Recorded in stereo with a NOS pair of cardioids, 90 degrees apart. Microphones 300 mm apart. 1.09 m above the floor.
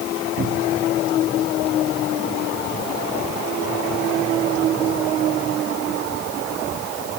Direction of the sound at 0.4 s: 40° right.